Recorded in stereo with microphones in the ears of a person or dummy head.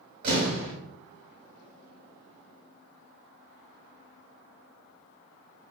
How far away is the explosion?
About 1.6 m.